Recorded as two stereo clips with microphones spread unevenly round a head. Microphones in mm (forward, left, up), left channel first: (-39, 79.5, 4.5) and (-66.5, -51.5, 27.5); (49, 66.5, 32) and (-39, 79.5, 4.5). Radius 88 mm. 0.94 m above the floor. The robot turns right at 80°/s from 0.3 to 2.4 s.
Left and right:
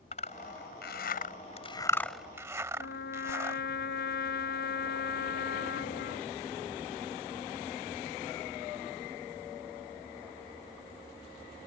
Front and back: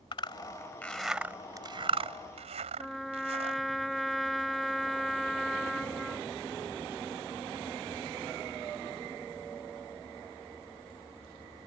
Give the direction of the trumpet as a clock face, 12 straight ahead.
9 o'clock.